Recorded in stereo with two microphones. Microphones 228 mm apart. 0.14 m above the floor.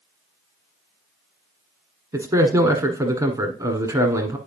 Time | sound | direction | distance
2.1 | a man speaking | 15° right (ahead or behind) | 1.4 m